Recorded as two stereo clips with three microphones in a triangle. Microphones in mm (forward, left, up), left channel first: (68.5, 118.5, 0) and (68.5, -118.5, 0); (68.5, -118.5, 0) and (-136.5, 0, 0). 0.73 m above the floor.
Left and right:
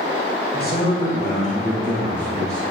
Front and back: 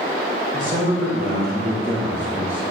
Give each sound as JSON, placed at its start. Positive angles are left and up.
{"t": 0.5, "sound": "a man speaking", "azimuth_deg": 120, "distance_m": 1.5}